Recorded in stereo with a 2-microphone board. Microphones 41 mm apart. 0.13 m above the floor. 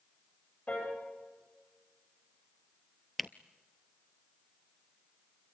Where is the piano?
35° left (ahead or behind), 9 m.